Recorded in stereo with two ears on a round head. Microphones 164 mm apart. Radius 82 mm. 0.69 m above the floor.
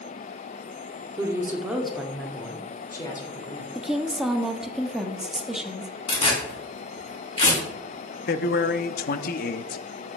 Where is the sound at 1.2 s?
20° right (ahead or behind), 1.7 m; by 3.6 s 25° left (ahead or behind), 2.5 m.